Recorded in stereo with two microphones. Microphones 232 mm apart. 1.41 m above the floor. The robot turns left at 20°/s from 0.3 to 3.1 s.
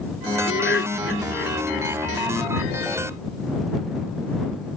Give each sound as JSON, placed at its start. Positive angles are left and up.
{"t": 0.5, "sound": "laughter", "side_deg": 55}